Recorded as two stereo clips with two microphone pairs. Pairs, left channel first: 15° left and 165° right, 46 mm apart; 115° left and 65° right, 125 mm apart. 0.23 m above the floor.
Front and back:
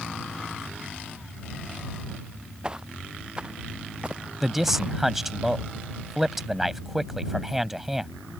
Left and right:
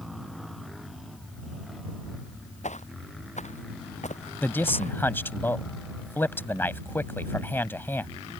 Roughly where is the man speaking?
Behind left.